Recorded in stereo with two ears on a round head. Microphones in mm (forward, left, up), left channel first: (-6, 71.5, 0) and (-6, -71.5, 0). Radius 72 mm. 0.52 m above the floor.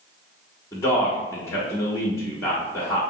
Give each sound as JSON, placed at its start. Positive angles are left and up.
{"t": 0.7, "sound": "a man speaking", "side_deg": 15, "distance_m": 0.8}